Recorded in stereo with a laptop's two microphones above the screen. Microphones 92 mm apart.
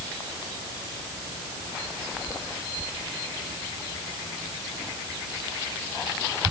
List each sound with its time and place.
Only background noise.